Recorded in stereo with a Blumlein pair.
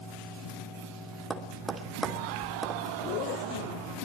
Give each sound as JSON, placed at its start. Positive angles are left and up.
{"t": 0.0, "sound": "a fan", "azimuth_deg": 40, "distance_m": 8.5}
{"t": 1.3, "sound": "tapping", "azimuth_deg": -15, "distance_m": 3.0}
{"t": 3.0, "sound": "a zipper", "azimuth_deg": 45, "distance_m": 0.8}